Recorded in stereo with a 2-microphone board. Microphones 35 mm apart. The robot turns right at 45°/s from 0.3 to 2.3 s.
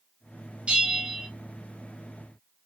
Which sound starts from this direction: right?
A bell, at 0.7 s.